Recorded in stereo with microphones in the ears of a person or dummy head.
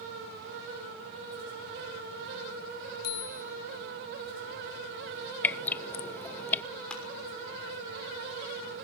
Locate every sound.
3.0 s a bicycle bell: 55° left (ahead or behind), 2.5 m
5.4 s dripping: 10° left (ahead or behind), 0.5 m
6.9 s crushing: 5° left (ahead or behind), 6 m